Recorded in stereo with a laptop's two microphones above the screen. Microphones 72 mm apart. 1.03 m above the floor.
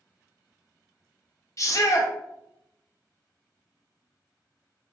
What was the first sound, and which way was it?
A shout, 45° left (ahead or behind).